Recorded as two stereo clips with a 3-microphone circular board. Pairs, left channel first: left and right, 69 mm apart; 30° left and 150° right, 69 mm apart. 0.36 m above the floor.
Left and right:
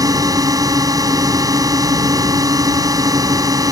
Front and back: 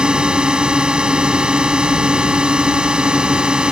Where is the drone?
75° right.